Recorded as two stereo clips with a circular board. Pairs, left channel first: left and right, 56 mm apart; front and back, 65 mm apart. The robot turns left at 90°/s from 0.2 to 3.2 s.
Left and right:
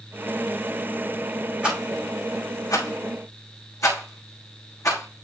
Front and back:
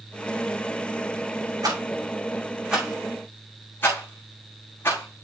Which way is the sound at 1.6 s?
160° right.